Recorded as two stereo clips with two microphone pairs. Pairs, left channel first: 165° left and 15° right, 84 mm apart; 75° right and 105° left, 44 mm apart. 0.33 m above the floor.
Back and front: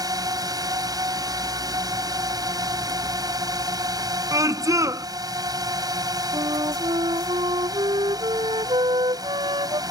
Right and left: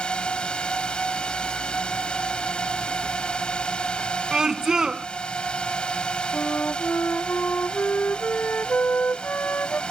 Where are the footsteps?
I don't hear footsteps.